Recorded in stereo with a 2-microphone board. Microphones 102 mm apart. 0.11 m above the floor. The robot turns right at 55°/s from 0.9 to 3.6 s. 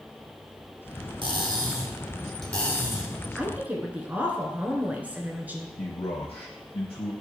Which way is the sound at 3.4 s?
15° right (ahead or behind).